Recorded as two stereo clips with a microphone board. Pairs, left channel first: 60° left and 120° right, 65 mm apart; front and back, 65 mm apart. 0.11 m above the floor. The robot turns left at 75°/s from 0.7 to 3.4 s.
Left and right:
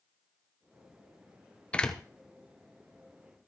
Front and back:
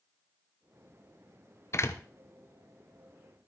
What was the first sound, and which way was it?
A door slam, 5° right.